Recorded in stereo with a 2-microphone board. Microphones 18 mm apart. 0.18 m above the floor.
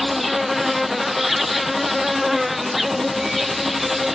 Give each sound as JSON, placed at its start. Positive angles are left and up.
{"t": 0.0, "sound": "an insect", "side_deg": -10}